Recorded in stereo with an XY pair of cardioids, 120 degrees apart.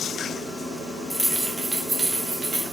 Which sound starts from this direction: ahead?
Keys jangling, at 1.1 s.